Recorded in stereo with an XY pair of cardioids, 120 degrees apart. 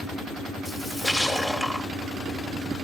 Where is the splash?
Straight ahead, 3 m.